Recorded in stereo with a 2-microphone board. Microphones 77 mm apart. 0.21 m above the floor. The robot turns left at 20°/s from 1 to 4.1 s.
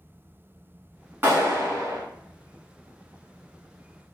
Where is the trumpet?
No trumpet in this recording.